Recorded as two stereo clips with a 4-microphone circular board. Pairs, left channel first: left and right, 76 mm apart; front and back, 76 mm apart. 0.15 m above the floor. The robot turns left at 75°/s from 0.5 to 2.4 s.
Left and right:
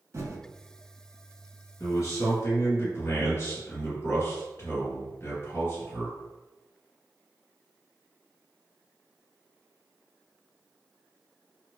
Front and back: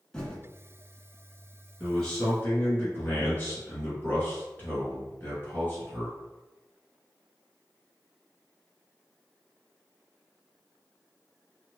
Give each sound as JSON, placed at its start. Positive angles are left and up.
{"t": 0.1, "sound": "typing on a keyboard", "azimuth_deg": -75, "distance_m": 0.6}
{"t": 1.8, "sound": "a man speaking", "azimuth_deg": 95, "distance_m": 1.8}